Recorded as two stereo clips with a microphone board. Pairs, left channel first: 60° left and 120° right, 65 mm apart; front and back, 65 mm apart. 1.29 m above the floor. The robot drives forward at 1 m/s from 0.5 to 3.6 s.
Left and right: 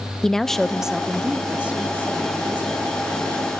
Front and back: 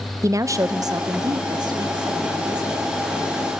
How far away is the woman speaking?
About 0.6 m.